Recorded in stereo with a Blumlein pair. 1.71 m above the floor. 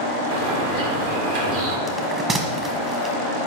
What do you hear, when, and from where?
0.3 s a bird: 50° right, 2.5 m
1.9 s a bell: 20° right, 1.6 m